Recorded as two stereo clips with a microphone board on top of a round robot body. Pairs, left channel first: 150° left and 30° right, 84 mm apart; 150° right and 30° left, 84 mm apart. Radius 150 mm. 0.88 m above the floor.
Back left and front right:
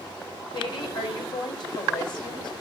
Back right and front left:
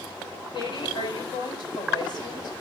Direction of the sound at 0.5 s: Straight behind.